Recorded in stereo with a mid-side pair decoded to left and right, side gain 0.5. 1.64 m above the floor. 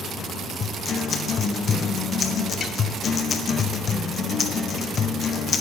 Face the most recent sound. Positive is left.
turn(degrees=45)